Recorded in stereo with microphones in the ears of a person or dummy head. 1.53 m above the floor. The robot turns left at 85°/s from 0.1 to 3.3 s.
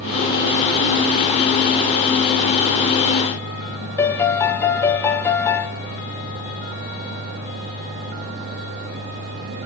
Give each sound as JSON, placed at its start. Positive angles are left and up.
{"t": 4.0, "sound": "a piano", "side_deg": 10, "distance_m": 1.0}